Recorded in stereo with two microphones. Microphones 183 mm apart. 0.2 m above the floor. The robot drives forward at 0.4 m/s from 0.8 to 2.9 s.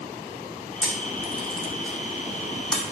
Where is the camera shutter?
5° left (ahead or behind), 3 m.